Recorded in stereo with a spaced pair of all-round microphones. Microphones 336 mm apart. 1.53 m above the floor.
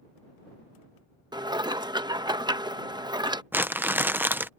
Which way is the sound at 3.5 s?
5° right (ahead or behind).